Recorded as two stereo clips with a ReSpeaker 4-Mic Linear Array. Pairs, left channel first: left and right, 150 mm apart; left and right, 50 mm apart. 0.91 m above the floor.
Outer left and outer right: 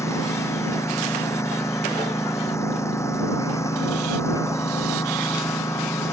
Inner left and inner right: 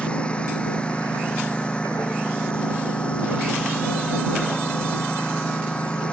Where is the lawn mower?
20° left (ahead or behind).